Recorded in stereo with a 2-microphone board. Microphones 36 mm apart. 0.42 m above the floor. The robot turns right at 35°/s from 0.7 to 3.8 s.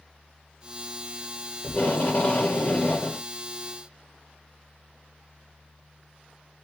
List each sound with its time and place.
1.6 s tape being pulled: 75° left, 1.3 m; by 3.2 s 130° left, 1.3 m